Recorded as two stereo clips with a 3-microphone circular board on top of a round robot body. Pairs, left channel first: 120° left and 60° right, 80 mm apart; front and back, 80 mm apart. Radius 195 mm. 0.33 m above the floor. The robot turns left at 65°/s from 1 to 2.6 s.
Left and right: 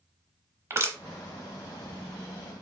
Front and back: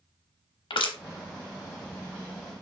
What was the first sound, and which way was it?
Crushing, straight ahead.